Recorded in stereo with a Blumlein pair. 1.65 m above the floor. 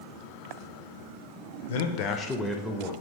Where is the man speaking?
60° left, 0.6 m; by 2.9 s 25° right, 0.7 m.